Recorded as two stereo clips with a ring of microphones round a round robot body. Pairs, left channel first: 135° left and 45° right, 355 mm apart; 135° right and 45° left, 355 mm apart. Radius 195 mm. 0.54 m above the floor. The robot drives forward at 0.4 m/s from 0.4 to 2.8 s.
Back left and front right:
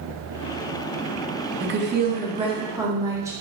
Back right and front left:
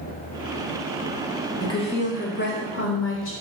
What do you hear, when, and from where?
1.6 s a woman speaking: 65° right, 0.9 m; by 3.3 s 120° right, 0.9 m